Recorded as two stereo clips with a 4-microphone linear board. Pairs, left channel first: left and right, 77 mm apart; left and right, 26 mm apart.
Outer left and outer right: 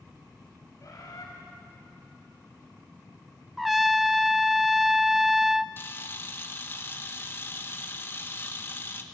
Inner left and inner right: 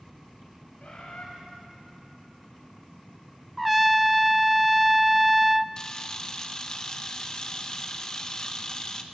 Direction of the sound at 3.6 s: Centre (ahead or behind).